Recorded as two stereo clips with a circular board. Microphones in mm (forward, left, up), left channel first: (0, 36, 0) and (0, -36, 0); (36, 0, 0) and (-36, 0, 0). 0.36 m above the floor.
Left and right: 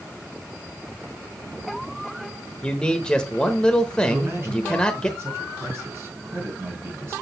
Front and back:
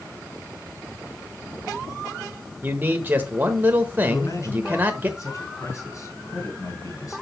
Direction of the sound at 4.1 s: 40° right.